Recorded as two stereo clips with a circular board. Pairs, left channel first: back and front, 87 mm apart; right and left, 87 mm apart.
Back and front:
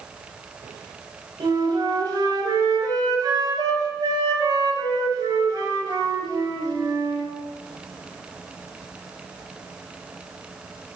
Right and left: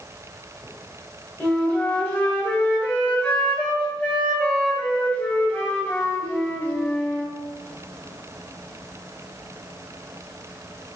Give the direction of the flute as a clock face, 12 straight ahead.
1 o'clock.